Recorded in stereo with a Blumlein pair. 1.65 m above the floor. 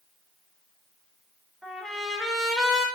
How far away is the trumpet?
About 3.5 m.